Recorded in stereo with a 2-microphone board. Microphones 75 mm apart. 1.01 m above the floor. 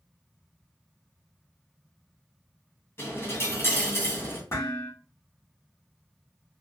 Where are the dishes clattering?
40° left (ahead or behind), 1.7 m.